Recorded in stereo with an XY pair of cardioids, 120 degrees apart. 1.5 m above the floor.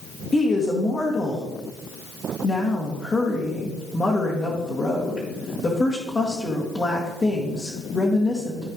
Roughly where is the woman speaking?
Ahead left.